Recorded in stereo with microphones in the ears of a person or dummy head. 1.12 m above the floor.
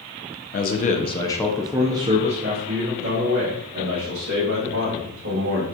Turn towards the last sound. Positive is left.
turn(degrees=-60)  # may be behind; listen again after turning